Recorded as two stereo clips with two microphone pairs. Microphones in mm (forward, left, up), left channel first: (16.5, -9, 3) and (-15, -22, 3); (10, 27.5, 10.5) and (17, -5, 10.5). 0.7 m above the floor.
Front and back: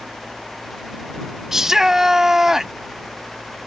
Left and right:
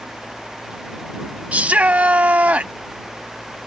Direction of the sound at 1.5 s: 85° right.